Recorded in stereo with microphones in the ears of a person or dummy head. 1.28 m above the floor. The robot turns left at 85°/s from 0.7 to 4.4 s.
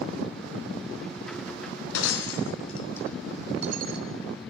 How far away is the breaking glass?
About 3.5 m.